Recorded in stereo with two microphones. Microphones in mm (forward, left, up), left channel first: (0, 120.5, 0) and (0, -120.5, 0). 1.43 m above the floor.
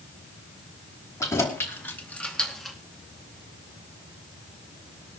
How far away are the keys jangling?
About 3 m.